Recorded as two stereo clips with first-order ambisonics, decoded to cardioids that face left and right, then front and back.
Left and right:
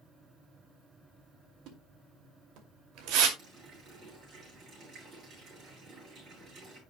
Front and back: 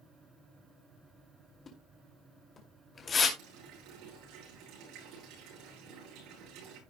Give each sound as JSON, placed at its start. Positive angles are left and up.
{"t": 1.7, "sound": "a splash", "azimuth_deg": -70, "distance_m": 2.5}
{"t": 3.4, "sound": "a running tap", "azimuth_deg": -150, "distance_m": 9.5}